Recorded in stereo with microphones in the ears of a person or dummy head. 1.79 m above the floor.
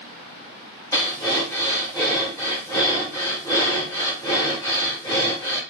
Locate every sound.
0.9 s breathing: 10° left (ahead or behind), 0.8 m